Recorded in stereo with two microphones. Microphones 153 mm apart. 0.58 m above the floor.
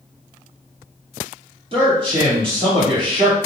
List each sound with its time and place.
1.7 s a man speaking: 35° right (ahead or behind), 1.5 m